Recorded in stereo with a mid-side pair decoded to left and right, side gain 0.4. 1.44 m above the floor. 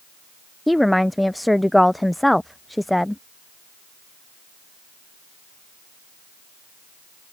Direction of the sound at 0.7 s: 5° left.